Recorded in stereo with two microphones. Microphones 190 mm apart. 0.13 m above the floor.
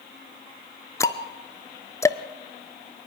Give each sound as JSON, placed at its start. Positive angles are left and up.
{"t": 1.0, "sound": "ticking", "side_deg": 15, "distance_m": 0.6}